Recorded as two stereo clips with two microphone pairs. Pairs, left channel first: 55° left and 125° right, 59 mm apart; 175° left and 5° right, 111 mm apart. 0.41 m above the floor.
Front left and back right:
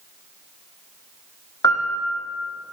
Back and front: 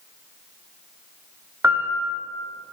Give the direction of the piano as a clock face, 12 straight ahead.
10 o'clock.